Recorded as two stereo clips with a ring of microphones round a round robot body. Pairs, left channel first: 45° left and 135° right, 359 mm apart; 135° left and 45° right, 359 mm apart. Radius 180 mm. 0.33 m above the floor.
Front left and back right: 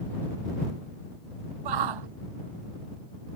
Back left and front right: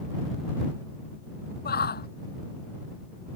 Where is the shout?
160° right.